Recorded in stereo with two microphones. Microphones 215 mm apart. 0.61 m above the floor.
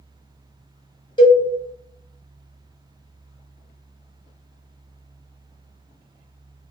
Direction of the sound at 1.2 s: 20° left (ahead or behind).